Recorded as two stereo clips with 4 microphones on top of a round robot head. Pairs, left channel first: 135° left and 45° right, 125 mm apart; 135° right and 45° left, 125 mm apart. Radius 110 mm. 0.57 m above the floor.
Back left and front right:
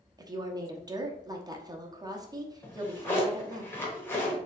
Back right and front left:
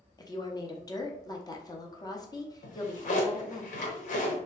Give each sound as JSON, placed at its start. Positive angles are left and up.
{"t": 0.2, "sound": "a woman speaking", "azimuth_deg": -90, "distance_m": 0.8}
{"t": 2.6, "sound": "a drawer", "azimuth_deg": -150, "distance_m": 0.8}